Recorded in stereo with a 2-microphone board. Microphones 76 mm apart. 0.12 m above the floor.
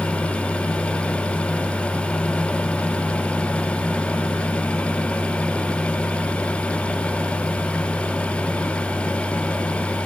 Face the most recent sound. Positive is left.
No sound to turn to.